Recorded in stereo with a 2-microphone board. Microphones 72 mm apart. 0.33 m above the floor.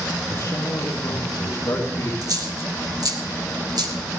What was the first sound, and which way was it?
A man speaking, 65° left (ahead or behind).